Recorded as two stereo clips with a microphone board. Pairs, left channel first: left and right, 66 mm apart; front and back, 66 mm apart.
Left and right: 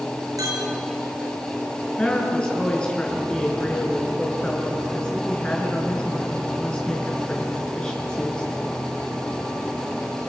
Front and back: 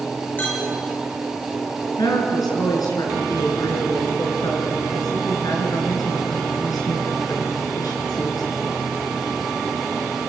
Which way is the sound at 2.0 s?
15° left.